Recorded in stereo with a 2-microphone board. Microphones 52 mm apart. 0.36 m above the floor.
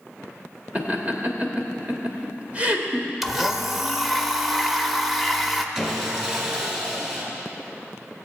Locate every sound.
0.8 s laughter: 30° right (ahead or behind), 1.0 m
3.2 s a blender: 5° right (ahead or behind), 0.6 m
5.8 s sawing: 15° right (ahead or behind), 1.6 m